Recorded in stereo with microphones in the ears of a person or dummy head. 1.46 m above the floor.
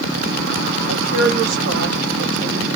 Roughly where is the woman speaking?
Right.